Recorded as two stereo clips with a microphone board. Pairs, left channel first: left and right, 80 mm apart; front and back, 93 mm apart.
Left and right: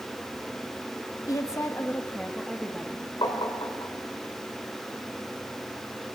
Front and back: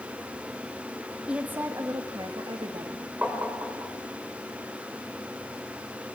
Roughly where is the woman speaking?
Left.